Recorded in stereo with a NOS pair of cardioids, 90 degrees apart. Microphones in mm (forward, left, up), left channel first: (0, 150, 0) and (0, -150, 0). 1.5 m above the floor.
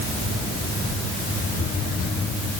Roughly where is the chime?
No chime in this recording.